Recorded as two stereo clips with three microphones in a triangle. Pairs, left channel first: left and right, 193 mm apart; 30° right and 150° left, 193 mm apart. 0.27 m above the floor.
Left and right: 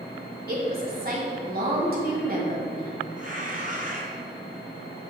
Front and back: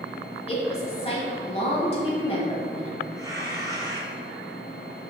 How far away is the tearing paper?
About 1.9 m.